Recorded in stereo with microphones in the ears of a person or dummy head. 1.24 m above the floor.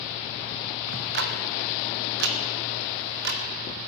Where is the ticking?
65° right (ahead or behind), 1.4 m.